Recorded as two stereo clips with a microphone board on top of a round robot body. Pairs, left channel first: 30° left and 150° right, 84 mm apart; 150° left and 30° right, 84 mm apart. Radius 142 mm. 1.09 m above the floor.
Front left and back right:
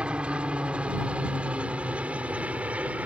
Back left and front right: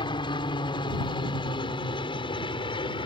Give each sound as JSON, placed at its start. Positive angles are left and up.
{"t": 0.0, "sound": "a helicopter", "azimuth_deg": 130}